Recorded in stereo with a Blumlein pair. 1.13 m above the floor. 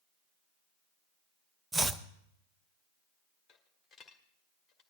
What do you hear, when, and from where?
1.7 s chopping: 10° right, 0.6 m
3.5 s a dropped coin: 10° left, 1.7 m